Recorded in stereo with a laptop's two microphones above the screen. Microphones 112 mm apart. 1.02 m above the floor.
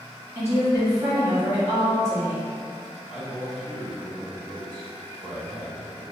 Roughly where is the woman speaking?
Right.